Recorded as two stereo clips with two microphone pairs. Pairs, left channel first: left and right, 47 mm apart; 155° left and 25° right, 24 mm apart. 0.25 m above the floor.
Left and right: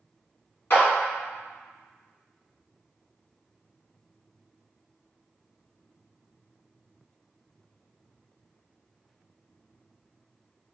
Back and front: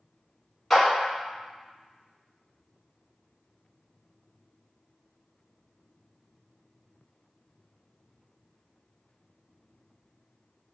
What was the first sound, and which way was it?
A clap, 75° left.